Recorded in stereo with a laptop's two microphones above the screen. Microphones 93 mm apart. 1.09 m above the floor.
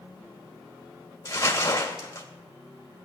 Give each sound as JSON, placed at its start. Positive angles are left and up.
{"t": 1.2, "sound": "crumpling", "side_deg": 35, "distance_m": 2.0}